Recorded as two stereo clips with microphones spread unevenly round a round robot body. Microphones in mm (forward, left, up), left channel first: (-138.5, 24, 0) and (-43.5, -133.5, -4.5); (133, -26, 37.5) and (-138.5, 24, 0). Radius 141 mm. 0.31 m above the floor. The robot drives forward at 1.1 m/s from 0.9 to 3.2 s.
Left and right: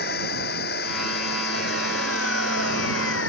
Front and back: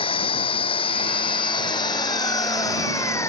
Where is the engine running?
60° left; by 3.3 s 70° left.